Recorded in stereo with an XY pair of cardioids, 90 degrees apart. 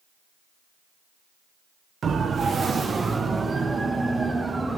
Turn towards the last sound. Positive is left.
turn(degrees=-25)